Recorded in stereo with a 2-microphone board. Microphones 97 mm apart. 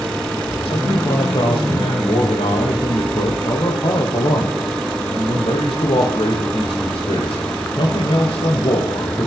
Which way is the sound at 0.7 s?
75° left (ahead or behind).